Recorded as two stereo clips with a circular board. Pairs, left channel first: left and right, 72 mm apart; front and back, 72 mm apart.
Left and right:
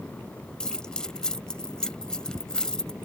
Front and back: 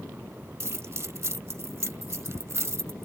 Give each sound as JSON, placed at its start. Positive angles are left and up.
{"t": 0.6, "sound": "keys jangling", "azimuth_deg": 165}